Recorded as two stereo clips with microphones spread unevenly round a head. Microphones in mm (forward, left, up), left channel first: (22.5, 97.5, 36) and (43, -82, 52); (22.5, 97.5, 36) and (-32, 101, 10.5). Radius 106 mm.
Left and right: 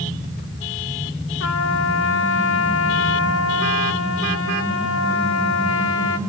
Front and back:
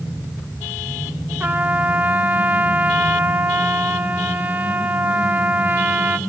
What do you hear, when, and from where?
1.4 s a trumpet: 115° left, 2 m